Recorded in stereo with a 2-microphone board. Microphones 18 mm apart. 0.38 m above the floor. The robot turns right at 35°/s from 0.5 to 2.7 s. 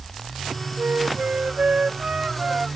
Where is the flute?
100° right; by 2.7 s 30° right.